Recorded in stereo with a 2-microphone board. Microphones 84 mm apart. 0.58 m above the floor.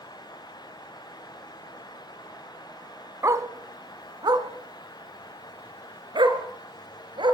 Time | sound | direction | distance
3.2 | a dog barking | 40° right (ahead or behind) | 1.4 m